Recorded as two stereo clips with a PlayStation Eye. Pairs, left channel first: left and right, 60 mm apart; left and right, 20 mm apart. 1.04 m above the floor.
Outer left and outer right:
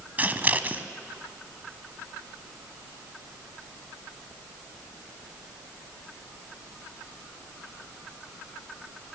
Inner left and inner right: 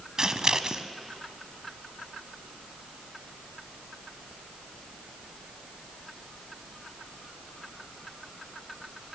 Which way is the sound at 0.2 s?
30° right (ahead or behind).